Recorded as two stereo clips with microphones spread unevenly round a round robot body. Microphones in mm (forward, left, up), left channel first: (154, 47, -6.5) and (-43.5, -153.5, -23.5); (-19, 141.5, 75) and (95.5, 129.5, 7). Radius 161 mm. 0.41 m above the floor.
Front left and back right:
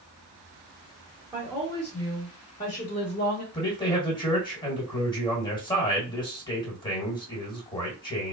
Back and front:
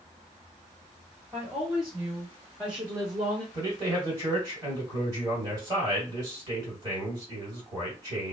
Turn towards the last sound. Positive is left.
turn(degrees=-30)